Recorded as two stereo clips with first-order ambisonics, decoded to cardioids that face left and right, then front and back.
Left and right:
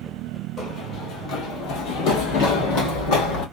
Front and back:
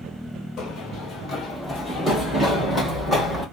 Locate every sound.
0.6 s running footsteps: 35° left, 1.4 m; by 3.4 s 95° left, 2.5 m